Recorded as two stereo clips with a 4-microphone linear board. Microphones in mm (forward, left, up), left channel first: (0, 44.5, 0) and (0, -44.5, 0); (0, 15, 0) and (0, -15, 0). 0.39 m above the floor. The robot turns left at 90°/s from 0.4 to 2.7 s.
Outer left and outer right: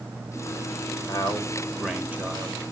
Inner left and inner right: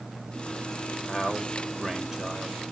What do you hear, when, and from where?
1.1 s a man speaking: 70° left, 1.1 m; by 2.6 s 65° right, 1.1 m